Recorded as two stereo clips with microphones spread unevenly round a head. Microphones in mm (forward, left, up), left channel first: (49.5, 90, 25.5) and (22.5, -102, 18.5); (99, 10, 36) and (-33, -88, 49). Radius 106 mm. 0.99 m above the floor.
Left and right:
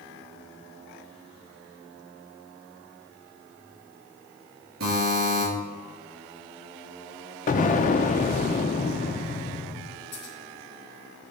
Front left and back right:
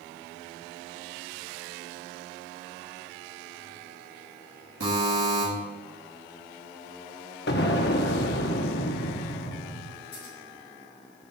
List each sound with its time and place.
4.8 s a buzzer: 150° right, 4 m
7.5 s an explosion: 50° left, 0.6 m
10.1 s scissors: 80° left, 3.5 m